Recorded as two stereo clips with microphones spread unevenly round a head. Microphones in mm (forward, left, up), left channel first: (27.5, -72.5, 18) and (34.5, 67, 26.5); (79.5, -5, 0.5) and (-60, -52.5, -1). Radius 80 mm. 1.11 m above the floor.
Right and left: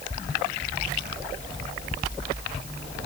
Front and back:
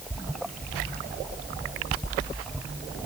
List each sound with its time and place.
Only background noise.